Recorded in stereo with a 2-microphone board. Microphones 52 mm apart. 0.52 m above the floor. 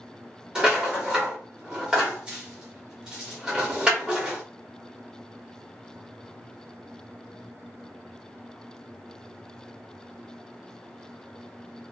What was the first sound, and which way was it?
A rattle, 15° right (ahead or behind).